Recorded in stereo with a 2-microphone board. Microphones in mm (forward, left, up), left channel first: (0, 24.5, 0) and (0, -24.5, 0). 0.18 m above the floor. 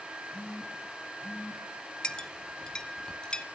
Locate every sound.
0.3 s a phone buzzing: 50° left (ahead or behind), 3.5 m
2.0 s a clink: 20° left (ahead or behind), 0.6 m